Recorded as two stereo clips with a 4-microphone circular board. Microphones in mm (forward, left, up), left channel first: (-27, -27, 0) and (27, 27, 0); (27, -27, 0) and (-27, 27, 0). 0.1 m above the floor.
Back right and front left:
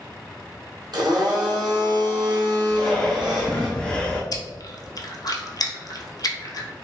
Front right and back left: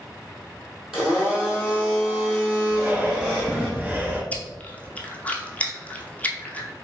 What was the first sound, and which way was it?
A blender, 50° left.